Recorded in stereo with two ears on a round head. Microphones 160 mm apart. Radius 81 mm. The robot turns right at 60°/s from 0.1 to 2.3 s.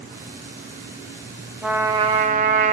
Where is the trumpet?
175° right, 1.5 m; by 2.7 s 135° right, 1.5 m.